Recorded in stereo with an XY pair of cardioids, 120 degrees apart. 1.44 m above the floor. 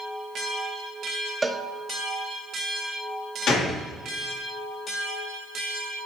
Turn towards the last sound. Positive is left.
turn(degrees=65)